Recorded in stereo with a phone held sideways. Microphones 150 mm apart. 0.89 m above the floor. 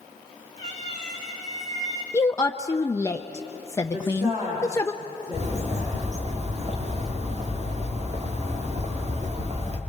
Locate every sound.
0.6 s a cat meowing: 50° right (ahead or behind), 6 m
2.1 s a woman speaking: 20° left (ahead or behind), 0.7 m
3.9 s a woman speaking: 25° right (ahead or behind), 7.5 m
5.3 s a bird: 45° right (ahead or behind), 2.0 m